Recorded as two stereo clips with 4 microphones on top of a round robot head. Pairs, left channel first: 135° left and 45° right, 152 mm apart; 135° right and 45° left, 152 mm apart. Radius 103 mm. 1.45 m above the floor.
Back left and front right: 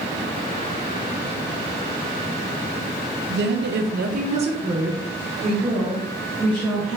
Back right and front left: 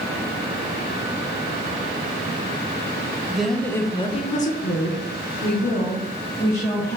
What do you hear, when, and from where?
3.3 s a woman speaking: 40° right, 0.7 m; by 7.0 s 145° right, 1.8 m